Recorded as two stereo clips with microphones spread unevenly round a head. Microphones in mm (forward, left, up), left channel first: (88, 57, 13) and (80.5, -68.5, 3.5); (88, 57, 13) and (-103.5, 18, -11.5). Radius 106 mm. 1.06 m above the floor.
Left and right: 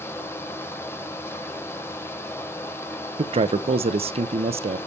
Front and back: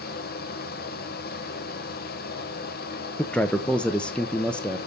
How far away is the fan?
About 1.2 m.